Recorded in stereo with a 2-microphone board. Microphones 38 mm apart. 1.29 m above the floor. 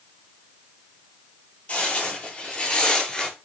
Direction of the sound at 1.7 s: 35° left (ahead or behind).